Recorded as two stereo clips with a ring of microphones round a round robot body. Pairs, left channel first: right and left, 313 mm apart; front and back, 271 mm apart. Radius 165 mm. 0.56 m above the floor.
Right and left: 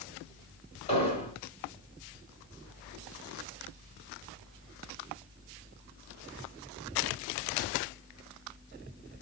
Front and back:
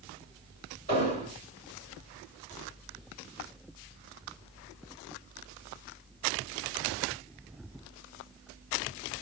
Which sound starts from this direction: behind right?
An explosion, at 0.9 s.